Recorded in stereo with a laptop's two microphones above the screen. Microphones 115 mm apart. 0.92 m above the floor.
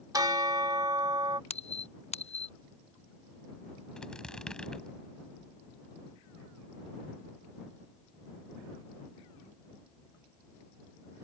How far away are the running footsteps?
No running footsteps in this recording.